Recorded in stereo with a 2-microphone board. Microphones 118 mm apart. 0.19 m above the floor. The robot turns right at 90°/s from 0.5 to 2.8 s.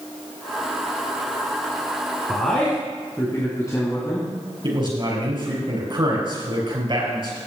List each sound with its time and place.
2.3 s a man speaking: 10° right, 2.5 m; by 4.3 s 35° left, 2.5 m
4.6 s a man speaking: 45° right (ahead or behind), 4.5 m